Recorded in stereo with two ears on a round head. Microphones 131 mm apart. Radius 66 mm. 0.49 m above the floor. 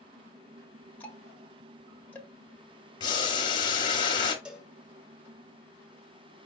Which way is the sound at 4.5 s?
5° right (ahead or behind).